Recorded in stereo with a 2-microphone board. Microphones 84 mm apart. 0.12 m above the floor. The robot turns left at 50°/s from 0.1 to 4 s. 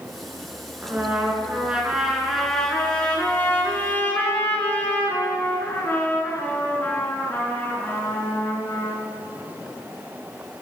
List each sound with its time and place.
0.8 s a trumpet: 20° right (ahead or behind), 1.6 m; by 9.0 s 25° left (ahead or behind), 1.6 m